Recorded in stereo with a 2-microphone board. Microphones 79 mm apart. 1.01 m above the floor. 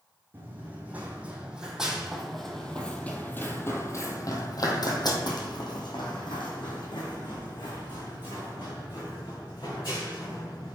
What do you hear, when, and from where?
0.3 s running footsteps: 25° right (ahead or behind), 2.5 m; by 10.8 s 70° left (ahead or behind), 5 m